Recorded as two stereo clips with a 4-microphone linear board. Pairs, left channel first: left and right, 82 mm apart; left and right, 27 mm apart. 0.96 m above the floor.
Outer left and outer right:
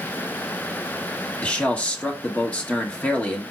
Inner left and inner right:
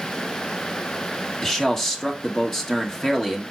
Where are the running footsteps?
I don't hear running footsteps.